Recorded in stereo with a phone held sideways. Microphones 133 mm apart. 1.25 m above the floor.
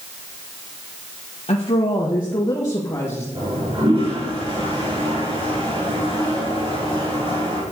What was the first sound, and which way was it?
A woman speaking, 50° left (ahead or behind).